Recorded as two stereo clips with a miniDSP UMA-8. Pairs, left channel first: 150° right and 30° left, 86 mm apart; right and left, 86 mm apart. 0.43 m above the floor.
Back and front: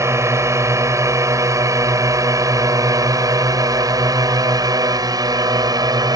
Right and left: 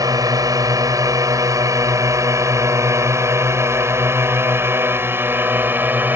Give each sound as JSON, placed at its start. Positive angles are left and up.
{"t": 0.0, "sound": "a drone", "azimuth_deg": 70}